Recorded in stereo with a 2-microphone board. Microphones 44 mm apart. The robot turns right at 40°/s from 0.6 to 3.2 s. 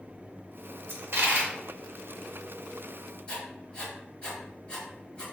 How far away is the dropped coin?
About 0.8 m.